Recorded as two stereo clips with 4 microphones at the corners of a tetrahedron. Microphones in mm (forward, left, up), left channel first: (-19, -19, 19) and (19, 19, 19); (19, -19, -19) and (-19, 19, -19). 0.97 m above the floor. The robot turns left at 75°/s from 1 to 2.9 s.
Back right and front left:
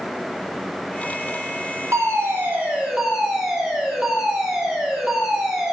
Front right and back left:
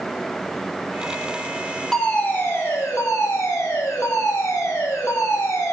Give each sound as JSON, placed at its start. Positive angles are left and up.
{"t": 1.9, "sound": "a fire alarm", "azimuth_deg": 40, "distance_m": 5.0}